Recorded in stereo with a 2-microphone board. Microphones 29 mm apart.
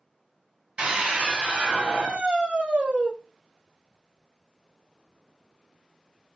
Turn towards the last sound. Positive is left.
turn(degrees=-55)  # may be behind; listen again after turning